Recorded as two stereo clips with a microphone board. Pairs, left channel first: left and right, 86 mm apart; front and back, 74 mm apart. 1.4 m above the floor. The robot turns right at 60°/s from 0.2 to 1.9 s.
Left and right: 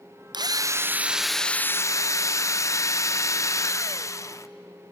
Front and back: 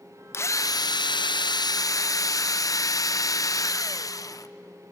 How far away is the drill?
About 0.6 m.